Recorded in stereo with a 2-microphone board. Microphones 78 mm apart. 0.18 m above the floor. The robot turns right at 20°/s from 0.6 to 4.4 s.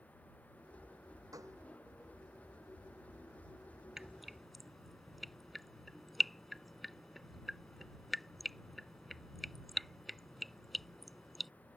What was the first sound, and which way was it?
A gunshot, 45° right (ahead or behind).